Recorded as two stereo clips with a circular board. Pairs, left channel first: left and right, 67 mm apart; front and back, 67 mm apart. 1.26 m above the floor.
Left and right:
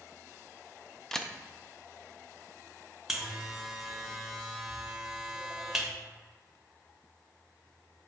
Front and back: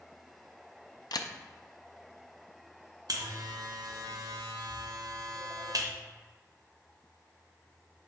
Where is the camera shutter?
10° left, 0.5 m.